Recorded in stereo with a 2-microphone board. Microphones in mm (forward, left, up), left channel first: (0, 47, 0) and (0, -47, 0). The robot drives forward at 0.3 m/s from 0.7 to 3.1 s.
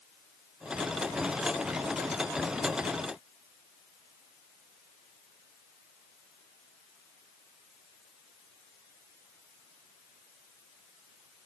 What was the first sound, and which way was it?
Only background noise.